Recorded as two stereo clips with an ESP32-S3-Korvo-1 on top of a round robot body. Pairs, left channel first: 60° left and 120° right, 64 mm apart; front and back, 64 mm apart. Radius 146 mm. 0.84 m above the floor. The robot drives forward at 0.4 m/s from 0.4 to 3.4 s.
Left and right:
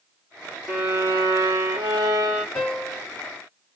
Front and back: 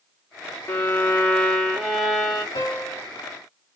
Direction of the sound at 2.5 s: 10° right.